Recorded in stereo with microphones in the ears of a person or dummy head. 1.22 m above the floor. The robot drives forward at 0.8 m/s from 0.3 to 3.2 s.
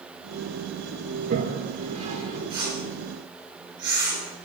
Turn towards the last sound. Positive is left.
turn(degrees=-20)  # may be behind; listen again after turning